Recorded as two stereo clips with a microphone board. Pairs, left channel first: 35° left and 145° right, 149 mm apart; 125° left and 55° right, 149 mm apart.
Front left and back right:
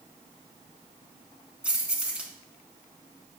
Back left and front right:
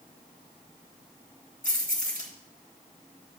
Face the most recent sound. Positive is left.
turn(degrees=135)